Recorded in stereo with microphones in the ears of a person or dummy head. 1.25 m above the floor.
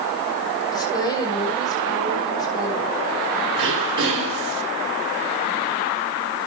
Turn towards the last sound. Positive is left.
turn(degrees=-60)  # may be behind; listen again after turning